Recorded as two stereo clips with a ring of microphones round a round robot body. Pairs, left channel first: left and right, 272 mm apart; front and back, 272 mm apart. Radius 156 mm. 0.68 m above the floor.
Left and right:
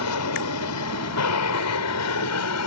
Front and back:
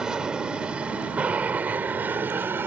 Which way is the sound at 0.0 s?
95° left.